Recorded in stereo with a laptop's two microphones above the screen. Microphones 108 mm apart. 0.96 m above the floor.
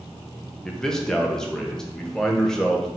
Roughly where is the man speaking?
Centre.